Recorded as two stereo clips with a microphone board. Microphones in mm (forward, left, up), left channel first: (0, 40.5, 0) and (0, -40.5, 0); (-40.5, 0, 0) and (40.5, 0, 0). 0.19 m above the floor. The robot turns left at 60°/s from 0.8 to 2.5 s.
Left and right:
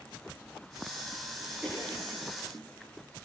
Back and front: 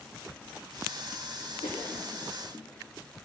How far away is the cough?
About 9.5 m.